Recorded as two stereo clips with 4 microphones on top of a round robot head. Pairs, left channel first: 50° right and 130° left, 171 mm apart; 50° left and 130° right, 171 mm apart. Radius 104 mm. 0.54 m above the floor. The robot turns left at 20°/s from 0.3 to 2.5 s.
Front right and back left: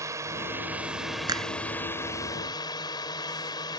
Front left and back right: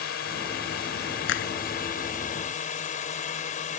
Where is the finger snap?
60° left; by 1.5 s 55° left.